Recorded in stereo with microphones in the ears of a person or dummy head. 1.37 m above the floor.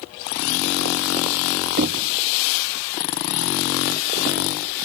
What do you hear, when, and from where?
1.8 s knocking: 50° right (ahead or behind), 0.8 m